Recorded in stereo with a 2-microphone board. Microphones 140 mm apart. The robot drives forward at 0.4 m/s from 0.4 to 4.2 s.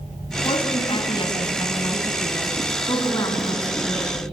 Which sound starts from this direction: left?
A woman speaking, at 0.5 s.